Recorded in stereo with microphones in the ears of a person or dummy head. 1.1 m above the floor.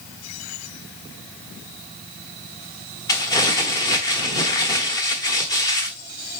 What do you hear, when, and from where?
3.1 s crumpling: 20° left (ahead or behind), 1.1 m